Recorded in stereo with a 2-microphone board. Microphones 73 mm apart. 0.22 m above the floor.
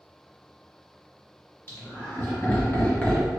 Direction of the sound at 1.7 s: 35° left (ahead or behind).